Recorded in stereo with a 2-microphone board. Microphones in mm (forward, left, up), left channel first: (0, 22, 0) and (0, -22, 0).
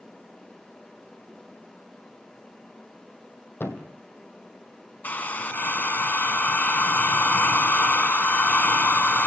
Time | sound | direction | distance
3.6 | a thud | 55° left (ahead or behind) | 2.5 m
5.0 | a hair dryer | 40° left (ahead or behind) | 1.7 m